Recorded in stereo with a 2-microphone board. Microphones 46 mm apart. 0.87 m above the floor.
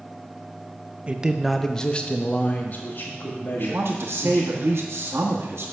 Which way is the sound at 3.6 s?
70° right (ahead or behind).